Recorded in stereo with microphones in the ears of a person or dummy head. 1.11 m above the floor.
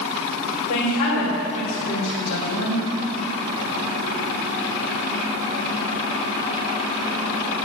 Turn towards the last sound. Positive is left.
turn(degrees=75)  # may be behind; listen again after turning